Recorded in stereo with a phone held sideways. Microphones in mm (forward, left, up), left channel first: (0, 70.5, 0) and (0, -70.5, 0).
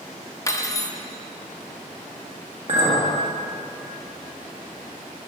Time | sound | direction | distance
0.5 | cutlery clinking | 25° left (ahead or behind) | 0.6 m
2.7 | a clink | 50° right (ahead or behind) | 1.3 m